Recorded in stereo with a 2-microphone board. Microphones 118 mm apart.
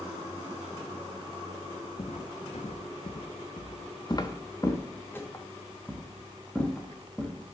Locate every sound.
2.0 s footsteps: 65° left (ahead or behind), 0.9 m; by 7.4 s 5° left (ahead or behind), 2.5 m